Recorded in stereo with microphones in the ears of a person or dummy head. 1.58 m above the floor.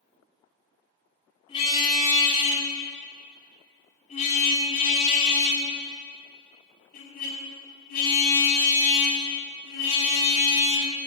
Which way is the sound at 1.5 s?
30° left (ahead or behind).